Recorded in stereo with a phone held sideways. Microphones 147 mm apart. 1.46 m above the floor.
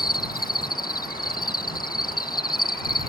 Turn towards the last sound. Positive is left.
turn(degrees=85)